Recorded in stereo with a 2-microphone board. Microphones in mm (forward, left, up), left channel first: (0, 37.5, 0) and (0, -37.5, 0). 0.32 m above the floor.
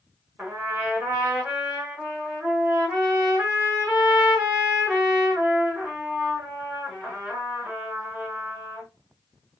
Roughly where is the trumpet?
Right.